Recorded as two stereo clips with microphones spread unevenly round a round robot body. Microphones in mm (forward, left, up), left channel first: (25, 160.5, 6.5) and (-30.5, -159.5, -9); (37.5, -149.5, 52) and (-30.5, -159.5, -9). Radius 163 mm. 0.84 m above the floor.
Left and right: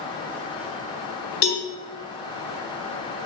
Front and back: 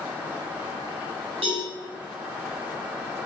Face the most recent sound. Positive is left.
turn(degrees=120)